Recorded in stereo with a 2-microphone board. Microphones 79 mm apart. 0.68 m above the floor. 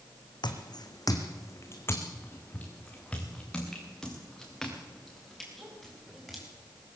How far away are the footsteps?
About 2 m.